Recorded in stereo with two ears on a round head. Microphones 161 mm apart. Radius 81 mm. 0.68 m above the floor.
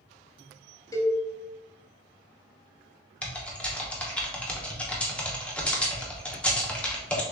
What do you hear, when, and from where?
0.9 s a cowbell: 20° left (ahead or behind), 0.8 m
3.2 s typing on a keyboard: 5° left (ahead or behind), 0.7 m